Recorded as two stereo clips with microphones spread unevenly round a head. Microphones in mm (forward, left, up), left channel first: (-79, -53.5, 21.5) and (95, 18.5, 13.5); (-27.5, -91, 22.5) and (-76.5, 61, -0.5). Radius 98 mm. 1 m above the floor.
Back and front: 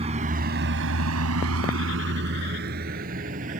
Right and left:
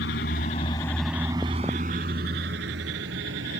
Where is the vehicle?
35° right; by 3.6 s 75° left.